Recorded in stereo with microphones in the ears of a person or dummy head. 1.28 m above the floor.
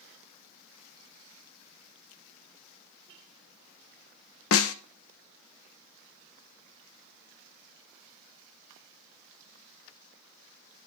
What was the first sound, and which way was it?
A snare drum, 70° left (ahead or behind).